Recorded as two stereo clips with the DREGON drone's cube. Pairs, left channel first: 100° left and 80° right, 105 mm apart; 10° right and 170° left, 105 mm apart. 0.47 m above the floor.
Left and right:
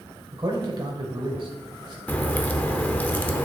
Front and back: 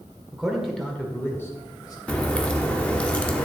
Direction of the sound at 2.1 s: 50° left.